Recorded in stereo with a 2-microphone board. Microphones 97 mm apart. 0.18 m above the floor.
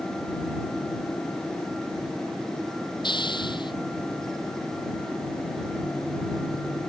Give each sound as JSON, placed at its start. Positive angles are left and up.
{"t": 3.0, "sound": "a hiss", "side_deg": 55}